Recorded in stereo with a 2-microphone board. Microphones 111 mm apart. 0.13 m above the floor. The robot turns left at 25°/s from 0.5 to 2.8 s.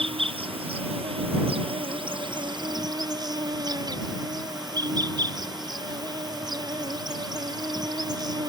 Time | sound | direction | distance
0.0 | an insect | 75° right | ?